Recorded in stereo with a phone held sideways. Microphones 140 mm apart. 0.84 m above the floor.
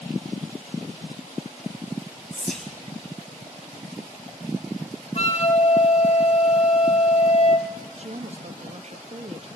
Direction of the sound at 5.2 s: 45° left (ahead or behind).